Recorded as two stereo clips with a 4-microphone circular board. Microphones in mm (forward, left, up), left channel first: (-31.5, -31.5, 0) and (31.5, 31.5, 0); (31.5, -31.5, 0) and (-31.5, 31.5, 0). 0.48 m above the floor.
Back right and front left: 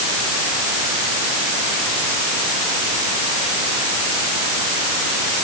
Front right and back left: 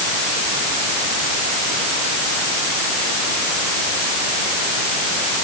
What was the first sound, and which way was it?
Only background noise.